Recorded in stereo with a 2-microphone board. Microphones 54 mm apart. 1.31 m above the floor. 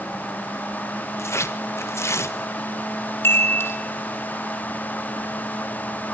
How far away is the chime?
About 3 m.